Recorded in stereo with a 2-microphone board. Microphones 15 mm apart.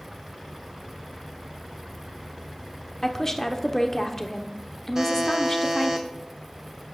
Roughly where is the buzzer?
Right.